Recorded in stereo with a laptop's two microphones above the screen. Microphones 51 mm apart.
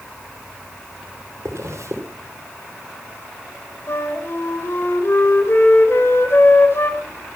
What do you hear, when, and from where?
1.4 s a zipper: 75° right (ahead or behind), 2.5 m
3.9 s a flute: 55° left (ahead or behind), 3 m